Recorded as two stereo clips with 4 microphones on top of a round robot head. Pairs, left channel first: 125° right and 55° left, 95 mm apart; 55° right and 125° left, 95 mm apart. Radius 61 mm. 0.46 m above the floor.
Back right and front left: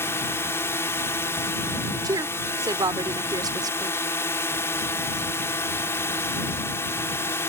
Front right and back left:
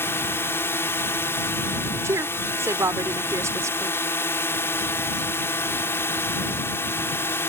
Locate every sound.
0.0 s a drone: 95° right
2.0 s a woman speaking: 80° left